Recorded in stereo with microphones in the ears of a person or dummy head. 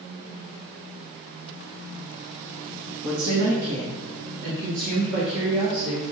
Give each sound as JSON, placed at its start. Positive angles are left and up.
{"t": 3.0, "sound": "a woman speaking", "side_deg": -60, "distance_m": 1.4}